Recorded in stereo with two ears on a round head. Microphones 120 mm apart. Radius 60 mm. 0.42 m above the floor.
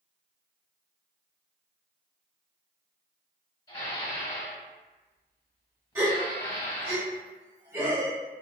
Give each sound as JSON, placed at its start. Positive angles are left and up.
{"t": 3.7, "sound": "dishes clattering", "side_deg": 35, "distance_m": 1.6}
{"t": 6.0, "sound": "a gasp", "side_deg": -20, "distance_m": 1.5}